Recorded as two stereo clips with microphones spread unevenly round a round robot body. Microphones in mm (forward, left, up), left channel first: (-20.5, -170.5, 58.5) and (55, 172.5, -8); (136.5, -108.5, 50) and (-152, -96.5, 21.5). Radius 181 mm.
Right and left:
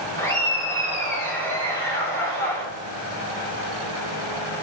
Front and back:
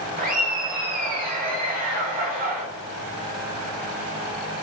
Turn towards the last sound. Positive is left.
turn(degrees=165)